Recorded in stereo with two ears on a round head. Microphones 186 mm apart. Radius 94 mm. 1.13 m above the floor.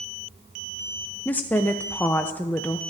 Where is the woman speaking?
10° left (ahead or behind), 0.5 m.